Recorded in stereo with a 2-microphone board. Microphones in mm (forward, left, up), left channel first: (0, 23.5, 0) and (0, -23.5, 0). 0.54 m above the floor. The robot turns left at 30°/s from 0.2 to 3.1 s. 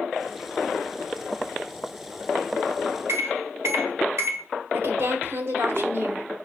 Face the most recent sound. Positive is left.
turn(degrees=-55)  # may be behind; listen again after turning